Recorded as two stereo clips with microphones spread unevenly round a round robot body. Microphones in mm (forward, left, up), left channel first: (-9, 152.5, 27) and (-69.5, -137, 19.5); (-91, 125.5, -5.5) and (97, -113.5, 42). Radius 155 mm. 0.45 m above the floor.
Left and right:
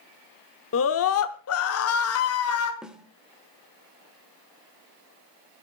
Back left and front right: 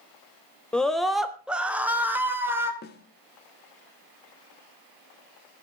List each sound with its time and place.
0.7 s a scream: 50° left, 1.0 m; by 2.7 s 35° left, 2 m
2.8 s a snare drum: 170° left, 1.3 m